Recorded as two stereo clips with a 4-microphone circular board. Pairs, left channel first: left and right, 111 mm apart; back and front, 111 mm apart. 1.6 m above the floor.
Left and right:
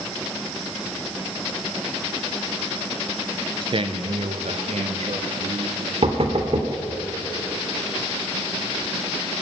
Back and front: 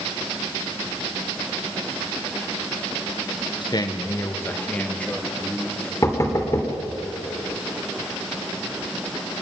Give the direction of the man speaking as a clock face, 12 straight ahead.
4 o'clock.